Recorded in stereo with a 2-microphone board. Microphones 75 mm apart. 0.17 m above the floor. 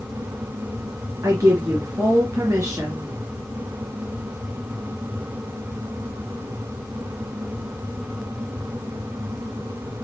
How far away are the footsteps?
I don't hear footsteps.